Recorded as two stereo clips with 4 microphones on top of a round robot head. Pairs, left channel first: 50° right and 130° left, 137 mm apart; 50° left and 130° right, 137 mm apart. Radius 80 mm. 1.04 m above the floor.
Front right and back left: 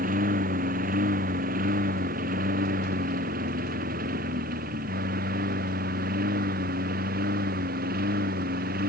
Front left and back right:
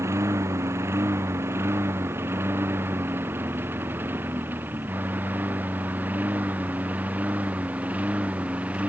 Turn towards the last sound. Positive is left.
turn(degrees=150)